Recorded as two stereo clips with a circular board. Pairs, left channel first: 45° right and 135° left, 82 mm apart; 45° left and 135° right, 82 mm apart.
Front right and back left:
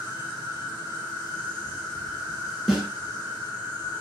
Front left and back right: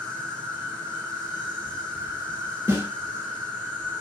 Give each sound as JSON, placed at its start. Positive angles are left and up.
{"t": 0.0, "sound": "an insect", "azimuth_deg": -25, "distance_m": 1.4}
{"t": 2.7, "sound": "a snare drum", "azimuth_deg": -145, "distance_m": 1.1}